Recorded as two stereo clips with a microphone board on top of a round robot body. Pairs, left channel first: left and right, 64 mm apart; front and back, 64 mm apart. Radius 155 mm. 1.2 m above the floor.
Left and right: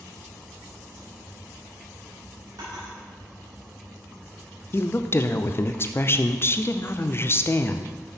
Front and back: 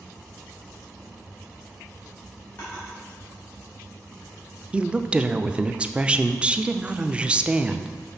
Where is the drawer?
65° right, 2.5 m.